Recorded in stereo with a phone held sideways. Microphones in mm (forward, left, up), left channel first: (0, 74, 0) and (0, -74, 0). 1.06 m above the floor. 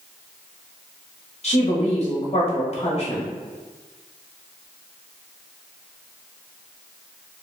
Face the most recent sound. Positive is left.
turn(degrees=45)  # may be behind; listen again after turning